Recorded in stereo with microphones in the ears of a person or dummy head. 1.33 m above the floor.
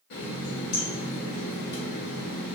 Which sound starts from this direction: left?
A running tap, at 0.1 s.